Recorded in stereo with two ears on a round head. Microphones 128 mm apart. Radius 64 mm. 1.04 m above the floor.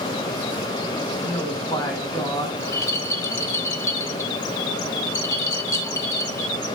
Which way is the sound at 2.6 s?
20° left (ahead or behind).